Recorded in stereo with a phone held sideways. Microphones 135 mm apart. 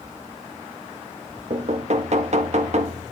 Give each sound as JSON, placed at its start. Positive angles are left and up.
{"t": 1.5, "sound": "knocking", "side_deg": -55, "distance_m": 0.9}